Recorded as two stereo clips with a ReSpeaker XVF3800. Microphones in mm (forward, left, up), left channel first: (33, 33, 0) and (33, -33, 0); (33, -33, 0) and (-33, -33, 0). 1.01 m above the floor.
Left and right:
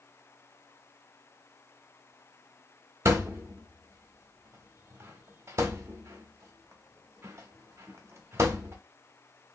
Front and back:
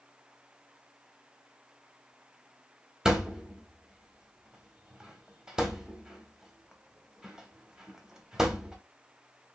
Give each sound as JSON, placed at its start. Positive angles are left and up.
{"t": 3.0, "sound": "a thud", "azimuth_deg": -100, "distance_m": 0.8}